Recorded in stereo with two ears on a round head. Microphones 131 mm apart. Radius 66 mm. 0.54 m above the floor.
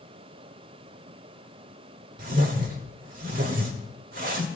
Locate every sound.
2.2 s a whoosh: 60° right (ahead or behind), 1.8 m